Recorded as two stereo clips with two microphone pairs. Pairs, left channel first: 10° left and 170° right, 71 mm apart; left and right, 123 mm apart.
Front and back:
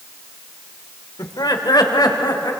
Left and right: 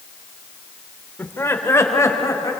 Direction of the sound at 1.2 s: 20° left.